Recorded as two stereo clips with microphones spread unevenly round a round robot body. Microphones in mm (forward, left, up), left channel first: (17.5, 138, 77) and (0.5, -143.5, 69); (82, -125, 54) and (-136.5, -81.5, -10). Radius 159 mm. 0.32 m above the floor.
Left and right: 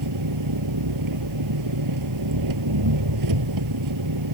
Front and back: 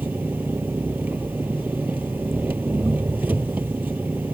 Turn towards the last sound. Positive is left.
turn(degrees=-110)